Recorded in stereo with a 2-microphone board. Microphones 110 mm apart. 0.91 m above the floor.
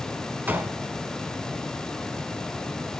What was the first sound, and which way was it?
A gunshot, 15° right (ahead or behind).